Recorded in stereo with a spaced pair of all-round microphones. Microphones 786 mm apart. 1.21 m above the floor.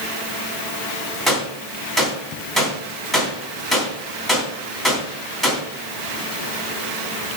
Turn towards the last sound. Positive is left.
turn(degrees=0)  # may be behind; listen again after turning